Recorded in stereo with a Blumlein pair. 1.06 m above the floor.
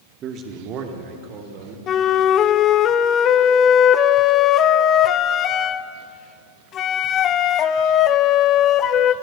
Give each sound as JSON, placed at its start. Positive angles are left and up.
{"t": 0.2, "sound": "a man speaking", "azimuth_deg": -30, "distance_m": 2.0}
{"t": 1.9, "sound": "a flute", "azimuth_deg": 30, "distance_m": 0.9}